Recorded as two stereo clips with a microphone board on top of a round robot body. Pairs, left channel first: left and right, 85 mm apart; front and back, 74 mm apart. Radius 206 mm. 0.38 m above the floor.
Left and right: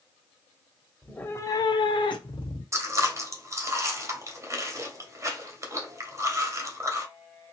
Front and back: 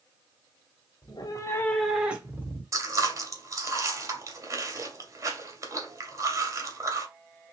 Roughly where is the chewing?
Behind right.